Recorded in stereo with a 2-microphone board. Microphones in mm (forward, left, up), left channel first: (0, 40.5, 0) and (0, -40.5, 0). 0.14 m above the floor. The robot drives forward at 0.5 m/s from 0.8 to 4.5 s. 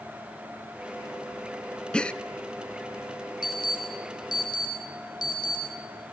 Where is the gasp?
10° left (ahead or behind), 0.6 m; by 2.1 s 15° left (ahead or behind), 0.5 m.